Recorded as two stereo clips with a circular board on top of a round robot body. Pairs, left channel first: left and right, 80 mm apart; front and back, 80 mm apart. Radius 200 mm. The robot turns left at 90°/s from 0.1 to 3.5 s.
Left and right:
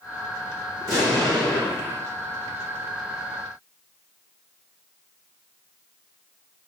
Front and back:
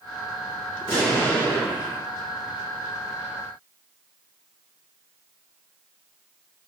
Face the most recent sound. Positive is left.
turn(degrees=90)